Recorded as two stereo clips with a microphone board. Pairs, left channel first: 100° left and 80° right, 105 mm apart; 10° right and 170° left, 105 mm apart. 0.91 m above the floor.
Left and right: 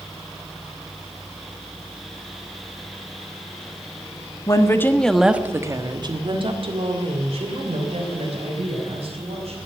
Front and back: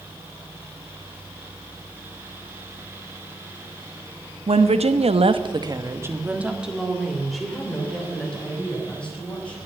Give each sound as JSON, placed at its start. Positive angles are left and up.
{"t": 4.5, "sound": "a woman speaking", "azimuth_deg": 150, "distance_m": 1.3}